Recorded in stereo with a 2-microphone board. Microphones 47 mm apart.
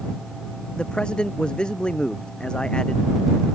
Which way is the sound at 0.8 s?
20° left (ahead or behind).